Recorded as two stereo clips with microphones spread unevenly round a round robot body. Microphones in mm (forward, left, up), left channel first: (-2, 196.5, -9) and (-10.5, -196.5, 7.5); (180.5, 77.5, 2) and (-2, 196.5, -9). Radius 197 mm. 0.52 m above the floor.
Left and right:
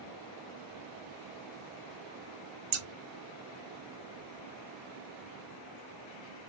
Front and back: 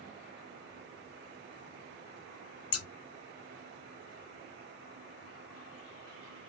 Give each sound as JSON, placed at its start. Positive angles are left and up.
{"t": 2.7, "sound": "scissors", "azimuth_deg": -45, "distance_m": 0.7}